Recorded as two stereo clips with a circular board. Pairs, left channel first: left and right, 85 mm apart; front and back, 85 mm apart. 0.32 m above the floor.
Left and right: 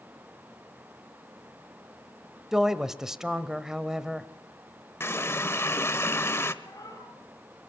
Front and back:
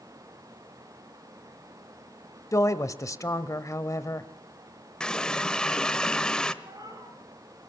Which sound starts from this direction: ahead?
A woman speaking, at 2.5 s.